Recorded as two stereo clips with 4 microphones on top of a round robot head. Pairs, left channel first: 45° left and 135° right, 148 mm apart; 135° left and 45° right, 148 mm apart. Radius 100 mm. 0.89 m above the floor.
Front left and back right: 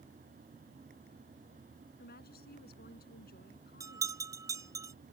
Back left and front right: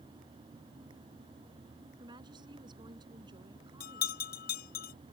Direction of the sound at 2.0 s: 20° left.